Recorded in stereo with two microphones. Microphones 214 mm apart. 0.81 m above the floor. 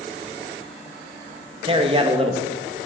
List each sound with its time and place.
1.6 s a man speaking: 25° right (ahead or behind), 1.0 m